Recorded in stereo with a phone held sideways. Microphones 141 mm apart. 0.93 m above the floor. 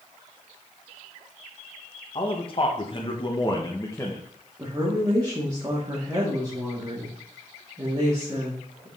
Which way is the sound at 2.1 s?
40° left (ahead or behind).